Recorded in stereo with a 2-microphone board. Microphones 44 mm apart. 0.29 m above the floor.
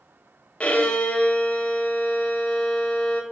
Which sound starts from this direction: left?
A violin, at 0.6 s.